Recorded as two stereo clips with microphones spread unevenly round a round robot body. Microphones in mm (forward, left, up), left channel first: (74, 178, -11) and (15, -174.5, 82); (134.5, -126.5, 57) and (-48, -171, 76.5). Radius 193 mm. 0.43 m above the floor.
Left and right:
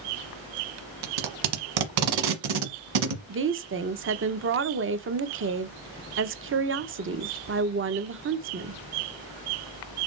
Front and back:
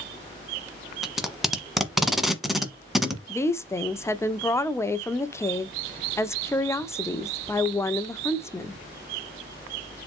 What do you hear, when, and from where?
1.0 s tape being pulled: 80° right, 1.4 m
3.3 s a woman speaking: 45° right, 0.9 m